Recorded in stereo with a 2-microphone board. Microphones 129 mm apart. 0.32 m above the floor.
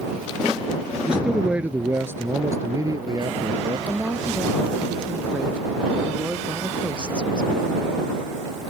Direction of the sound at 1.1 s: 5° right (ahead or behind).